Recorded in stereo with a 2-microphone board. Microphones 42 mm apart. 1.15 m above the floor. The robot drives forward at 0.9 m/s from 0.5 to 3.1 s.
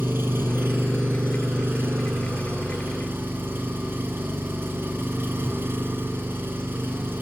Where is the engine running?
65° right (ahead or behind), 3.5 m.